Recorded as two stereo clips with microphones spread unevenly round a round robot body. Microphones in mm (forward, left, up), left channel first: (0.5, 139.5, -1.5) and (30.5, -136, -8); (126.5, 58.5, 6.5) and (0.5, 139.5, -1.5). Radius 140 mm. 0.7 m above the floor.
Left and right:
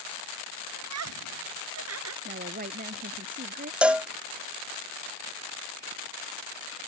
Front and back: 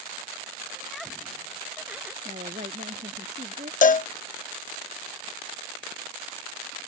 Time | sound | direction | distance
0.8 | laughter | 120° right | ?
2.2 | a woman speaking | 145° right | ?
3.8 | a cowbell | straight ahead | ?